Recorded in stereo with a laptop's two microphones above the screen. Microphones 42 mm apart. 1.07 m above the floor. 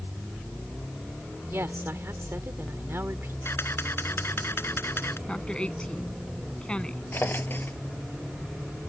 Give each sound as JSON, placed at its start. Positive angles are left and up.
{"t": 1.5, "sound": "a woman speaking", "side_deg": -75}
{"t": 3.5, "sound": "a camera shutter", "side_deg": 70}
{"t": 5.3, "sound": "a woman speaking", "side_deg": 25}
{"t": 7.1, "sound": "a drawer", "side_deg": 55}